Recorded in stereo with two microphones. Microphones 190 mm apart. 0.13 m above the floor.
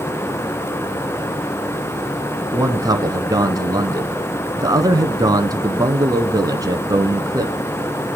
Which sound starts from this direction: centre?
A man speaking, at 2.5 s.